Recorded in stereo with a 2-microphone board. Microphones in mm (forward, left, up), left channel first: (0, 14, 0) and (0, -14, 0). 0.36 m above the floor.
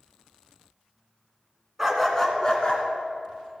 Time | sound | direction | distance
1.8 | a dog barking | 10° right (ahead or behind) | 1.7 m